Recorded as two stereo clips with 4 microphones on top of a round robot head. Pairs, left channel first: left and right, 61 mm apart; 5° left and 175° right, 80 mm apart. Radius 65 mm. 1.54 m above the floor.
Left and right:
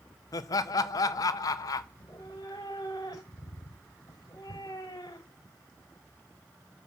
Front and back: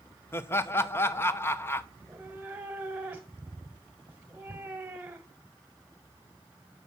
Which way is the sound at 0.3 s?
65° left.